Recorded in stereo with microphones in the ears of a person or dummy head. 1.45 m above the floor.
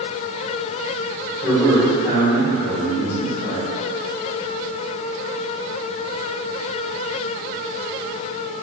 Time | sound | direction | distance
1.4 | a man speaking | 20° left (ahead or behind) | 1.5 m